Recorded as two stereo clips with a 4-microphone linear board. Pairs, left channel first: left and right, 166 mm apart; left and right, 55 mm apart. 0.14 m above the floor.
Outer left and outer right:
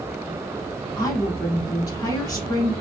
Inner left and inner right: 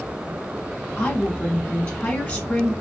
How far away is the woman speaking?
About 1.1 m.